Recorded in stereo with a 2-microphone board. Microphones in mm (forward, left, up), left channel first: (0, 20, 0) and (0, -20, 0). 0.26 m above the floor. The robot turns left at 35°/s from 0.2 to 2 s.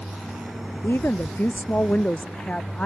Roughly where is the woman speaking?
Left.